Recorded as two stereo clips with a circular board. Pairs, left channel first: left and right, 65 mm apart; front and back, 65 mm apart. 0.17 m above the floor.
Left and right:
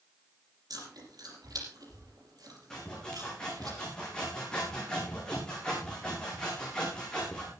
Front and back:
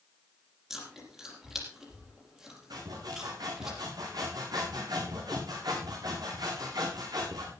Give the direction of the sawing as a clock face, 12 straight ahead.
6 o'clock.